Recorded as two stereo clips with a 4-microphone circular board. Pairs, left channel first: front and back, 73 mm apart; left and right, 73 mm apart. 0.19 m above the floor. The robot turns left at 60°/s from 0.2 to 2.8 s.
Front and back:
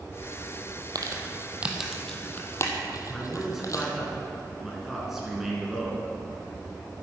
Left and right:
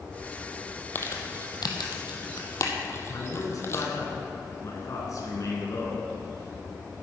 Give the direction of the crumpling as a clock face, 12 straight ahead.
7 o'clock.